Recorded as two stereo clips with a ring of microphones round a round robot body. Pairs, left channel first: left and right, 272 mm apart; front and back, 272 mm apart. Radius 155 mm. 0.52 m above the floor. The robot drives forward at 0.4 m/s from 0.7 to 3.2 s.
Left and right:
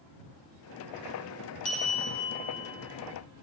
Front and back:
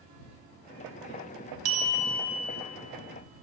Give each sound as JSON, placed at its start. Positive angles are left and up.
{"t": 1.6, "sound": "a bell", "azimuth_deg": 155, "distance_m": 0.7}